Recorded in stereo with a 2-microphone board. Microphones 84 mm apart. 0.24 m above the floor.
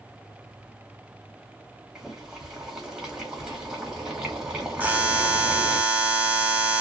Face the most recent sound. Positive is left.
turn(degrees=-20)  # may be behind; listen again after turning